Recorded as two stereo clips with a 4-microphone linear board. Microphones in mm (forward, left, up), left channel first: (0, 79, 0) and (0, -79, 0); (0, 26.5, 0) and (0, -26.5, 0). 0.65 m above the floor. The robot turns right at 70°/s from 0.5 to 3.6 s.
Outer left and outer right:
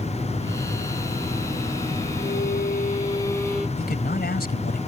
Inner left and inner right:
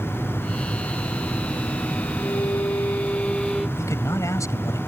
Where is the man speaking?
80° left.